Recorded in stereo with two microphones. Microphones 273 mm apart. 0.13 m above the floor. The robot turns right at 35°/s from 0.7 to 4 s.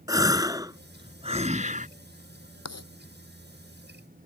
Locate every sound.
0.1 s a gasp: 155° right; by 1.9 s 115° right
2.6 s writing: 70° left (ahead or behind); by 2.9 s 65° left (ahead or behind)